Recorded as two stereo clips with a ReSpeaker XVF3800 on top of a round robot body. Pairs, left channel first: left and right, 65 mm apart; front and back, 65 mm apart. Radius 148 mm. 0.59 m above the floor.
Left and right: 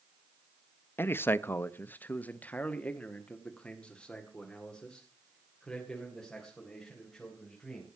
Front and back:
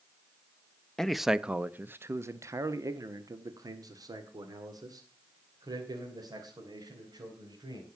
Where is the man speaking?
75° left, 0.8 m; by 7.9 s 175° left, 4 m.